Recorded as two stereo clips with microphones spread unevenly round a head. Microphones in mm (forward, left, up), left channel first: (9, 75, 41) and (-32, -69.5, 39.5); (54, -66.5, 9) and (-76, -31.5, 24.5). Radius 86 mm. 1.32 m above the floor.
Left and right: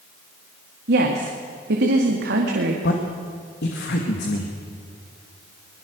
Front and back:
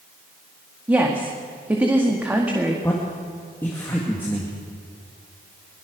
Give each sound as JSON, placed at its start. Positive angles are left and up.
{"t": 0.9, "sound": "a woman speaking", "azimuth_deg": -120, "distance_m": 2.0}
{"t": 2.8, "sound": "a man speaking", "azimuth_deg": 65, "distance_m": 2.0}